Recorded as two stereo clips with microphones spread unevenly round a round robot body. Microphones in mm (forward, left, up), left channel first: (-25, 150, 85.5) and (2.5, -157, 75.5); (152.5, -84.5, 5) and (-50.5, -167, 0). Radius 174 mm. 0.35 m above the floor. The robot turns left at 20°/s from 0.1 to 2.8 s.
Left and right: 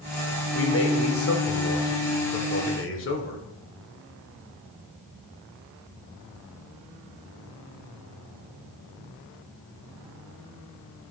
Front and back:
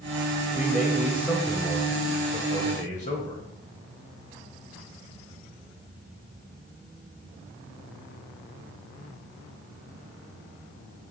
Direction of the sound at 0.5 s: 115° left.